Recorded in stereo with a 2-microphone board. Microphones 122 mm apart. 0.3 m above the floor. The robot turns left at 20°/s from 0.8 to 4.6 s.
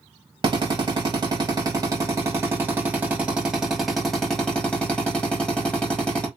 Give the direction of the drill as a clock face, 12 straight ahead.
4 o'clock.